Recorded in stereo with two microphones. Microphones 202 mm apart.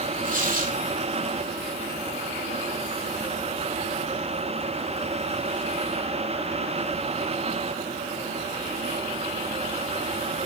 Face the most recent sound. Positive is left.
turn(degrees=-40)  # may be behind; listen again after turning